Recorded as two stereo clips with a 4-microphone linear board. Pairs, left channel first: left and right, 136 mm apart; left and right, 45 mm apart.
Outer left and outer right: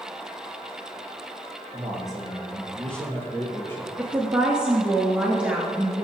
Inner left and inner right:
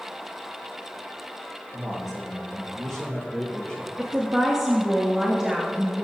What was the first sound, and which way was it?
A man speaking, 5° right (ahead or behind).